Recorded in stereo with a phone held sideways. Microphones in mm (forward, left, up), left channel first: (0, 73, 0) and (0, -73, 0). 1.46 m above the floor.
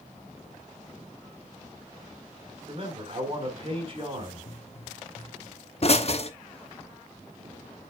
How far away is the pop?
About 0.7 m.